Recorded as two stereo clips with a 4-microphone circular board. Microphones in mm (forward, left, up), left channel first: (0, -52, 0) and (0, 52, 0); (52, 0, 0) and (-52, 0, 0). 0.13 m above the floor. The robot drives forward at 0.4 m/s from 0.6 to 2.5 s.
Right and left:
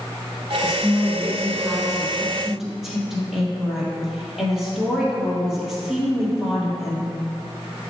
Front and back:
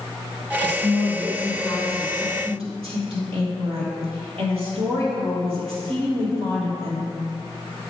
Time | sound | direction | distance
0.6 | a woman speaking | 175° left | 2.5 m